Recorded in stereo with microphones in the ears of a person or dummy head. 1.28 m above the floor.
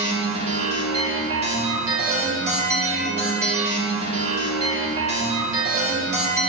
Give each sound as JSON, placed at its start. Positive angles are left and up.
{"t": 0.0, "sound": "a machine running", "side_deg": -40, "distance_m": 2.0}